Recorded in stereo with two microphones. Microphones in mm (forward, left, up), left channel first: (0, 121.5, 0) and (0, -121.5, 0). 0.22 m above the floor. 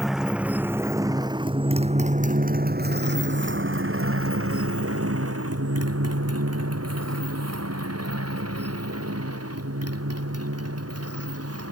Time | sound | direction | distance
0.0 | a motorcycle | centre (ahead or behind) | ?